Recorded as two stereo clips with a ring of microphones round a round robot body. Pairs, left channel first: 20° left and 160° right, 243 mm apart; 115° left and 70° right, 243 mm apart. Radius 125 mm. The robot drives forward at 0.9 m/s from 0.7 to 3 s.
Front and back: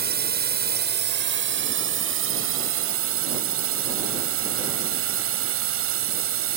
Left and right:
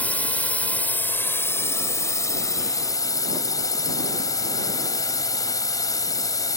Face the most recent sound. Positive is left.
turn(degrees=-175)